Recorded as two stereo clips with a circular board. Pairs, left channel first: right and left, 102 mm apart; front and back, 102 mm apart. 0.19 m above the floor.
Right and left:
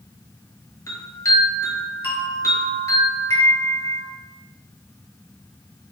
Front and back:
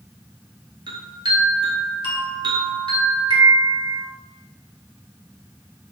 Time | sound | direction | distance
0.9 | a chime | 145° right | 1.3 m